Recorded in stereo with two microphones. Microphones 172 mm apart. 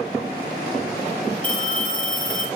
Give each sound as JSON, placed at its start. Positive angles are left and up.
{"t": 1.4, "sound": "a phone ringing", "side_deg": 5, "distance_m": 6.5}